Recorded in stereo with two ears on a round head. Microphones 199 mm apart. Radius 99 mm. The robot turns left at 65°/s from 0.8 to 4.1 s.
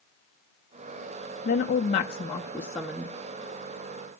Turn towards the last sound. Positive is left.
turn(degrees=-85)